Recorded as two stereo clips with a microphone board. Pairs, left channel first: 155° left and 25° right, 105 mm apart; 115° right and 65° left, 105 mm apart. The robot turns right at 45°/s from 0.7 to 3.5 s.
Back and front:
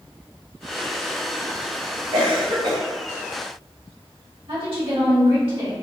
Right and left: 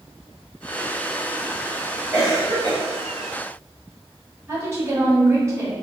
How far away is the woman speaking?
About 1.5 m.